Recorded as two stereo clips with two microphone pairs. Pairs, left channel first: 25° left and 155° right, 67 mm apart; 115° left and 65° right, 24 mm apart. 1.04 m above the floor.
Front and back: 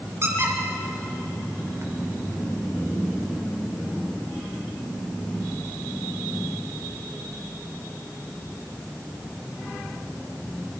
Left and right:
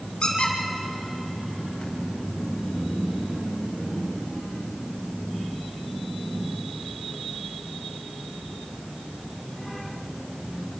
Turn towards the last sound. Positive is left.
turn(degrees=160)